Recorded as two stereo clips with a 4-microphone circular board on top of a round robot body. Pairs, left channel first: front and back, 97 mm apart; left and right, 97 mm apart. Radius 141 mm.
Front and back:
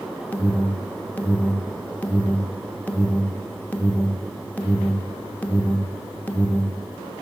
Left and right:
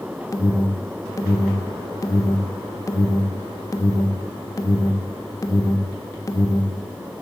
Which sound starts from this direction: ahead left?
An alarm, at 0.3 s.